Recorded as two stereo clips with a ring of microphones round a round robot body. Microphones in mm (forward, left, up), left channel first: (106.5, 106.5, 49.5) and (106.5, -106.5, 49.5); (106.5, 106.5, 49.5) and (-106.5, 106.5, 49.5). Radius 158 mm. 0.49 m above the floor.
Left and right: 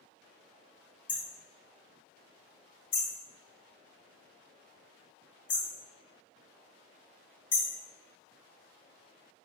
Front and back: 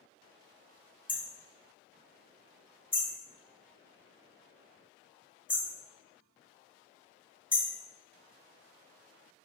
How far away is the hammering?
About 2.5 m.